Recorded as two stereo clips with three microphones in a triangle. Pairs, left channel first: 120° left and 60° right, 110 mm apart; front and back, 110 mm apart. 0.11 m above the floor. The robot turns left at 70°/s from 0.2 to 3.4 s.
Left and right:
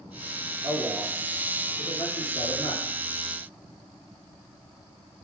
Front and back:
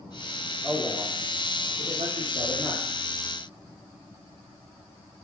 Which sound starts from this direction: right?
A man speaking, at 0.6 s.